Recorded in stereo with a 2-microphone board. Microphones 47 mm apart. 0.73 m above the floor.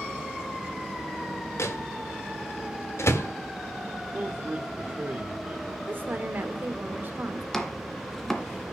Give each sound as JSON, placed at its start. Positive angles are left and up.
{"t": 1.6, "sound": "a microwave", "side_deg": 70, "distance_m": 1.4}
{"t": 4.1, "sound": "a man speaking", "side_deg": -40, "distance_m": 2.0}
{"t": 5.9, "sound": "a woman speaking", "side_deg": -45, "distance_m": 2.5}
{"t": 7.5, "sound": "chopping", "side_deg": 10, "distance_m": 1.9}